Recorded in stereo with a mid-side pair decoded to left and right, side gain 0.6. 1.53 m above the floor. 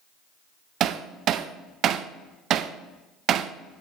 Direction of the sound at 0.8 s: 55° right.